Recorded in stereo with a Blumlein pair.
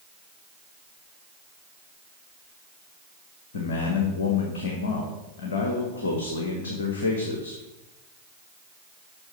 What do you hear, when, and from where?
3.5 s a man speaking: 65° left, 1.5 m